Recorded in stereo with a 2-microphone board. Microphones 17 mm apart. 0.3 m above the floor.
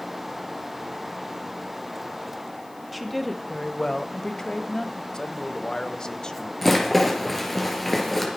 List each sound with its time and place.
2.9 s a woman speaking: 5° right (ahead or behind), 1.1 m; by 5.0 s 40° left (ahead or behind), 1.6 m
5.1 s a man speaking: 40° left (ahead or behind), 1.3 m
6.6 s a rattle: 10° left (ahead or behind), 4 m